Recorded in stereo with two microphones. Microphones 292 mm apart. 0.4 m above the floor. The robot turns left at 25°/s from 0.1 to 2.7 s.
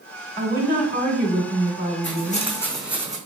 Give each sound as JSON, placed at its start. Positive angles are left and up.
{"t": 0.4, "sound": "a woman speaking", "side_deg": -25, "distance_m": 0.8}
{"t": 2.0, "sound": "footsteps", "side_deg": 40, "distance_m": 0.9}